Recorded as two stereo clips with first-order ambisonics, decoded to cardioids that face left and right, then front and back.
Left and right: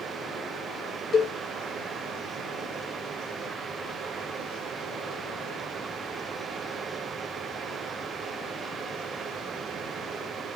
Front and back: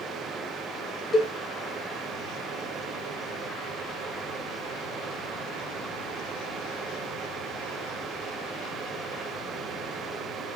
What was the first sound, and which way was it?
A cowbell, 55° left.